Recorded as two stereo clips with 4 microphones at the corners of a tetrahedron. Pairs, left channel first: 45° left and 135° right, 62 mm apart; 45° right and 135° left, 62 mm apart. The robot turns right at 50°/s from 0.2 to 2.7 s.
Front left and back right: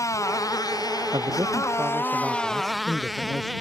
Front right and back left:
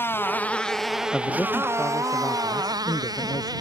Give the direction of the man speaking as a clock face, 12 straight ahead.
4 o'clock.